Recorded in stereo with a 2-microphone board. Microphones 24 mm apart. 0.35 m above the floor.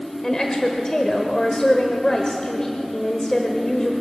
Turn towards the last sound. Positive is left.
turn(degrees=30)  # may be behind; listen again after turning